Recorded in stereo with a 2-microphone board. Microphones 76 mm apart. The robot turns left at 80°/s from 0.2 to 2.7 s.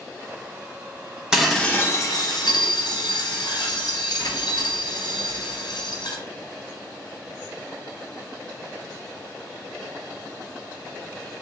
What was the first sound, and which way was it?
Dishes clattering, 170° right.